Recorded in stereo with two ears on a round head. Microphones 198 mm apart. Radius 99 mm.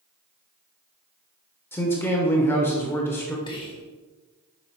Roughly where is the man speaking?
Centre.